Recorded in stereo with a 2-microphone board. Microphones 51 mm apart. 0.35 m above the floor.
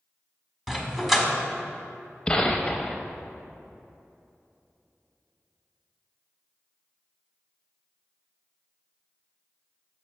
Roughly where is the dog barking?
Centre.